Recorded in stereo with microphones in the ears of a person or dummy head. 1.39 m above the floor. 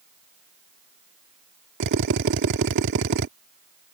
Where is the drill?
60° right (ahead or behind).